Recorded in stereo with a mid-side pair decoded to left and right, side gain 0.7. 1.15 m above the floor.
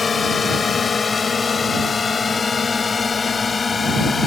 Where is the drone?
25° left; by 4.3 s 20° left.